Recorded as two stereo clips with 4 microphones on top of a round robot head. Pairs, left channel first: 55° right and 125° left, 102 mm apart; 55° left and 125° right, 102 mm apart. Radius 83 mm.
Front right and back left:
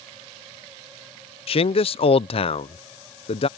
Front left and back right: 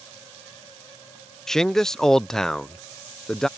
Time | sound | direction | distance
1.5 | a man speaking | 30° right | ?